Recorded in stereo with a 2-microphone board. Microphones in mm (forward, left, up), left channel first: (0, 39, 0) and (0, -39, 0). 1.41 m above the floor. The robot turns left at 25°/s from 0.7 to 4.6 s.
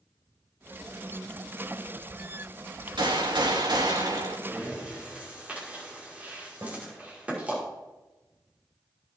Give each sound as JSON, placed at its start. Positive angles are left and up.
{"t": 3.0, "sound": "a gunshot", "azimuth_deg": -90, "distance_m": 1.9}
{"t": 4.5, "sound": "breathing", "side_deg": -15, "distance_m": 5.5}
{"t": 6.6, "sound": "a snare drum", "side_deg": -30, "distance_m": 4.0}